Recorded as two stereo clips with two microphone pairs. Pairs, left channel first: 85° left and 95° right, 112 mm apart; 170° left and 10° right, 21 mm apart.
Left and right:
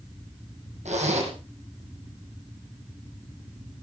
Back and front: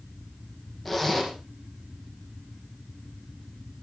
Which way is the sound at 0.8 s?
105° right.